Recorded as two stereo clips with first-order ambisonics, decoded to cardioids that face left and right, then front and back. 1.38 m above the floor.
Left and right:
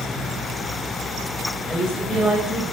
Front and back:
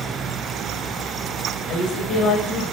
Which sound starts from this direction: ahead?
A woman speaking, at 1.7 s.